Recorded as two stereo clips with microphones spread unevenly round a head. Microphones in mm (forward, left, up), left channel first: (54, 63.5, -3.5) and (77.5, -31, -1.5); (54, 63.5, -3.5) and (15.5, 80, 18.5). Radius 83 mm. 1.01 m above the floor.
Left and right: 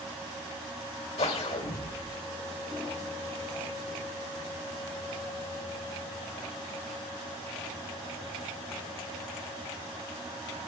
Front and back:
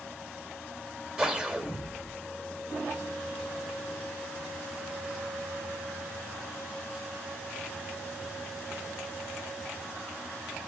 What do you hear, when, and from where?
1.2 s a whoosh: 90° left, 2.5 m